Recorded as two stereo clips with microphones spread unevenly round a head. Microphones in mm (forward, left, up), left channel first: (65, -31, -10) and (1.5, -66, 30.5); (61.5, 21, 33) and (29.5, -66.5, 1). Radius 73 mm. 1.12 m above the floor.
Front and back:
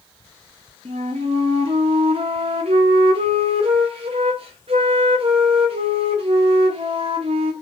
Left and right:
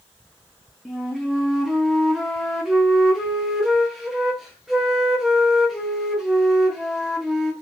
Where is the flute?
Straight behind, 0.5 m.